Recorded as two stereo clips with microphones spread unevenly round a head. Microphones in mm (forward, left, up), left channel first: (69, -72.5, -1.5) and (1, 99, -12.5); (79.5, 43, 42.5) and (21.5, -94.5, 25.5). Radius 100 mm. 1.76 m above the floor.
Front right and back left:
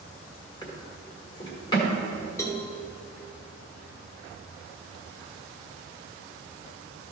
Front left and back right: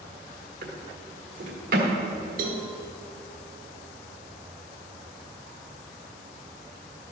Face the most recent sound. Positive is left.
turn(degrees=-135)